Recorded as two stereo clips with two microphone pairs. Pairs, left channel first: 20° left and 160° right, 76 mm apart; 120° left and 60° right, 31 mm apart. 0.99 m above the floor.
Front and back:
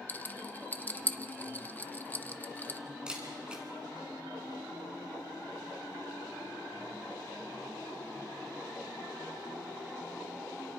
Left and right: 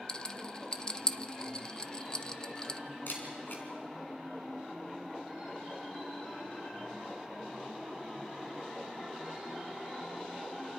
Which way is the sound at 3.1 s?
120° left.